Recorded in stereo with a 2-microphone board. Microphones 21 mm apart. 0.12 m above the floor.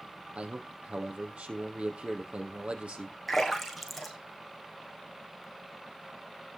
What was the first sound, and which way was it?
A man speaking, 65° right (ahead or behind).